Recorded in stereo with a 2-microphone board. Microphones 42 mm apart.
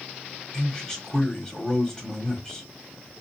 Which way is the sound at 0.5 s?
15° left (ahead or behind).